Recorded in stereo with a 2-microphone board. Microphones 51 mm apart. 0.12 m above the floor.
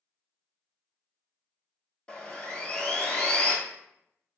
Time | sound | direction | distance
2.1 | sawing | 25° left (ahead or behind) | 0.6 m